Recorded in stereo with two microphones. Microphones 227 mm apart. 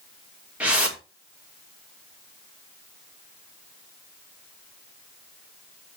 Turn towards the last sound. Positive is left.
turn(degrees=-5)  # may be behind; listen again after turning